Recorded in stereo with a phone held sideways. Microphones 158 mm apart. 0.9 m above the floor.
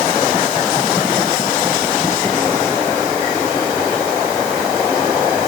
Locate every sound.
Only background noise.